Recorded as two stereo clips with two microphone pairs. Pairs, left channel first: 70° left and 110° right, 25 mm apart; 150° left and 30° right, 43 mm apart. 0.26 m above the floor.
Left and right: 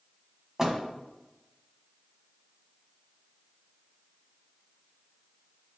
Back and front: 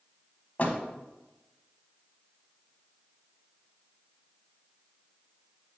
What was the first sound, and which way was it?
A door slam, 170° right.